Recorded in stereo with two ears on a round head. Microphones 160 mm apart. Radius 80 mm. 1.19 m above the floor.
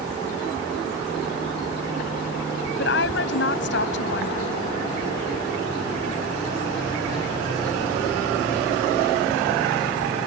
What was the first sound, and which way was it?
A woman speaking, 70° left (ahead or behind).